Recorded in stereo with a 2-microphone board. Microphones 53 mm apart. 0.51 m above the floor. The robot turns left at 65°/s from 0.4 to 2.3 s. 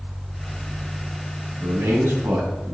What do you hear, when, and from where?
1.6 s a man speaking: 90° right, 3.5 m; by 2.7 s 135° right, 3.5 m